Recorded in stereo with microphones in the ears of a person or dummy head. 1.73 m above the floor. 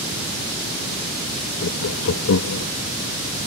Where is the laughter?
70° left (ahead or behind); by 2.7 s 85° left.